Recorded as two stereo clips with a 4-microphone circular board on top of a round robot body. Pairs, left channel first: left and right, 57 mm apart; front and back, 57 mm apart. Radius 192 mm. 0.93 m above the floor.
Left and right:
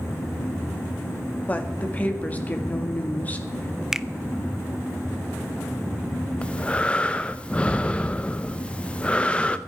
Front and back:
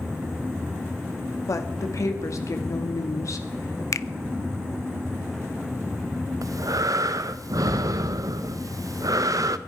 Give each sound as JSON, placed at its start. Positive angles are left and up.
{"t": 1.5, "sound": "a woman speaking", "azimuth_deg": 25, "distance_m": 2.0}
{"t": 3.9, "sound": "a finger snap", "azimuth_deg": -10, "distance_m": 0.7}
{"t": 6.4, "sound": "breathing", "azimuth_deg": 160, "distance_m": 0.6}